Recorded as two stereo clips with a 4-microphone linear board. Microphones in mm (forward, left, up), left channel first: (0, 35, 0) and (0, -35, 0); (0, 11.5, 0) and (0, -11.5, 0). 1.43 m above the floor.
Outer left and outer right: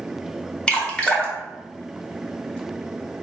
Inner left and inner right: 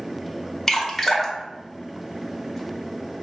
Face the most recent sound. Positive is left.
turn(degrees=15)  # may be behind; listen again after turning